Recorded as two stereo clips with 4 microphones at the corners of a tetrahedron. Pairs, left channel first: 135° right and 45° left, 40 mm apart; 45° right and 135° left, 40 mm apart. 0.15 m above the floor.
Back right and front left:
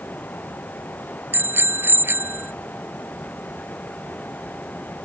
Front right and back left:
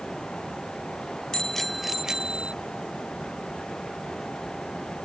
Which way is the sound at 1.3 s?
25° left.